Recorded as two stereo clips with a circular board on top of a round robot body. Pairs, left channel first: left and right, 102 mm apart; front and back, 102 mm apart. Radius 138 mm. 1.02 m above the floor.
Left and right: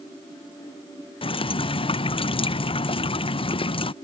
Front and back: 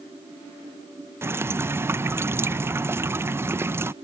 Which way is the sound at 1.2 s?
115° left.